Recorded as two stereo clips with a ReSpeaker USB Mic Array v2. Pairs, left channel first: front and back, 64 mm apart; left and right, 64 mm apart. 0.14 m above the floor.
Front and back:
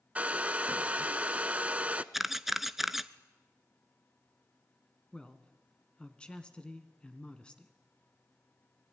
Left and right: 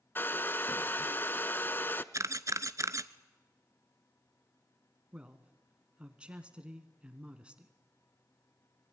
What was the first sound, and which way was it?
A hair dryer, 120° left.